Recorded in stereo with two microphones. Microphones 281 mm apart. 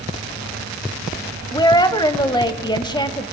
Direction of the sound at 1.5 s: 15° left (ahead or behind).